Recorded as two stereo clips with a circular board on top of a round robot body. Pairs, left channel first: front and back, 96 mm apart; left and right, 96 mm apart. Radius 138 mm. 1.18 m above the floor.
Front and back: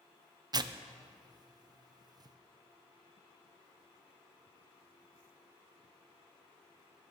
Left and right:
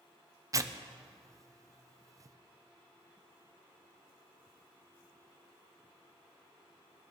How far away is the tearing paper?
About 0.6 m.